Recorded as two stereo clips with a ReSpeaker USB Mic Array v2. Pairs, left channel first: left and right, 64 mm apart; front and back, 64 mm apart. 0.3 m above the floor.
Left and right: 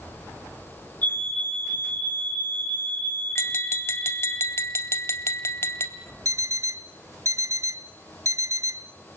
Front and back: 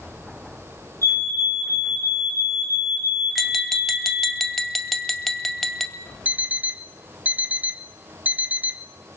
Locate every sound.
1.0 s a fire alarm: 150° left, 9.5 m
3.4 s tapping: 90° left, 1.9 m
6.2 s an alarm clock: 120° right, 1.0 m